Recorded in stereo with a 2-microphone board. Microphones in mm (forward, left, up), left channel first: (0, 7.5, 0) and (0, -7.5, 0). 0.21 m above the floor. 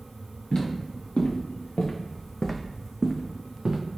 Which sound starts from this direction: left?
Footsteps, at 0.5 s.